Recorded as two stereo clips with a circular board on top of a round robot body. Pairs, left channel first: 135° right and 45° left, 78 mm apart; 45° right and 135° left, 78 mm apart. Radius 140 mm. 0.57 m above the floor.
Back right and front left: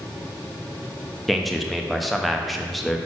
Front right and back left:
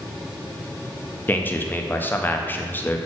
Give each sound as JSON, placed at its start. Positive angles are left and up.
{"t": 1.3, "sound": "a man speaking", "azimuth_deg": -45, "distance_m": 0.9}